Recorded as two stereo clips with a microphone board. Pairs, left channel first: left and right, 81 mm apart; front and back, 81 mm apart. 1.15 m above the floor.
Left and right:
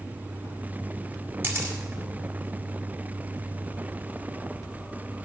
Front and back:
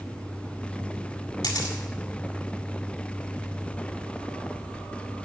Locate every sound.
1.4 s a camera shutter: 35° right, 1.9 m